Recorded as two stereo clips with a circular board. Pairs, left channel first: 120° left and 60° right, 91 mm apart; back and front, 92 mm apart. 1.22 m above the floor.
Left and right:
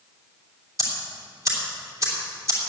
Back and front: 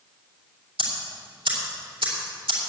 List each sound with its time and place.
0.8 s ticking: 10° right, 3 m